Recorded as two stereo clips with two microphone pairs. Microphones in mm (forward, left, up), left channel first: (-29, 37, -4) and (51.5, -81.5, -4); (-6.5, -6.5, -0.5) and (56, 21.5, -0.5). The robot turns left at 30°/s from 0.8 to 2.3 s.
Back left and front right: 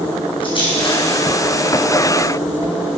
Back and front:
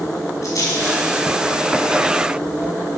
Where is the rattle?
175° left, 5 m; by 3.0 s 130° left, 5 m.